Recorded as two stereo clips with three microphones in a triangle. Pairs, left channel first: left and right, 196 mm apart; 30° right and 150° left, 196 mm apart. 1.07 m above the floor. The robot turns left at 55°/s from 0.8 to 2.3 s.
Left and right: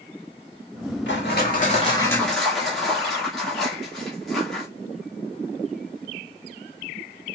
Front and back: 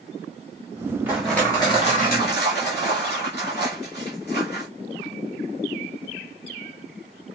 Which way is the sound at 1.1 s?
70° left.